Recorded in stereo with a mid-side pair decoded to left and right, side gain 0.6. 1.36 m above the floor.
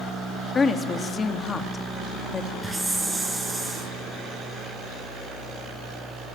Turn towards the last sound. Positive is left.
turn(degrees=-10)